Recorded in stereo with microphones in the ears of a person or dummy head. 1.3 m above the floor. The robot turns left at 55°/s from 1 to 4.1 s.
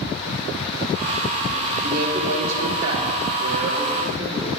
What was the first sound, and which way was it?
A man speaking, 40° right.